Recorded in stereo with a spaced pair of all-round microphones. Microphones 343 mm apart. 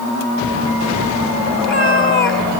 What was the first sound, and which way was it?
A cat meowing, 35° left (ahead or behind).